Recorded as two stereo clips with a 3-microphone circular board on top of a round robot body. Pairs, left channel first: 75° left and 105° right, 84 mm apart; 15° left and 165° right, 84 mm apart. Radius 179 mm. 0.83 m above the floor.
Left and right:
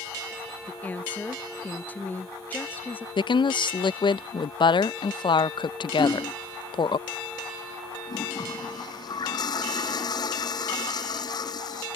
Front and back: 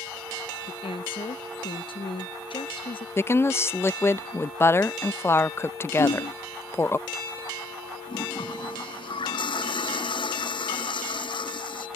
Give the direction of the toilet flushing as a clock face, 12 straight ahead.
11 o'clock.